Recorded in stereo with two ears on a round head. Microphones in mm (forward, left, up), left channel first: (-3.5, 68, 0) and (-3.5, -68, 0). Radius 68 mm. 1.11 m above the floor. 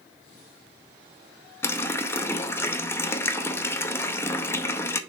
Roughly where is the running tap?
Centre.